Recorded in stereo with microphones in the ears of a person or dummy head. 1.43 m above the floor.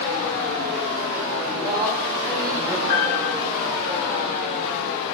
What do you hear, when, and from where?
1.4 s a man speaking: 25° right (ahead or behind), 3 m; by 2.8 s 5° right (ahead or behind), 2.5 m
2.9 s a piano: 75° left (ahead or behind), 2.5 m